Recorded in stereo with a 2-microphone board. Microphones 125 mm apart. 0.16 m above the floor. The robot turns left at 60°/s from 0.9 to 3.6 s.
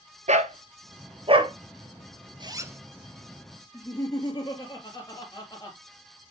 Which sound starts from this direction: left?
Laughter, at 3.7 s.